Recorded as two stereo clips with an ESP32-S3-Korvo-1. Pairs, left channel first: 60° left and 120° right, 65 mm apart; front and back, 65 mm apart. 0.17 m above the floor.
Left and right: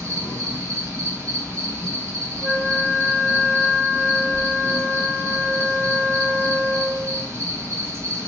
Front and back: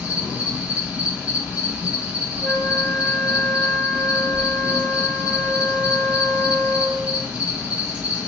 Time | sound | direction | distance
0.0 | an insect | 125° right | 1.7 m
2.4 | a flute | 150° right | 3 m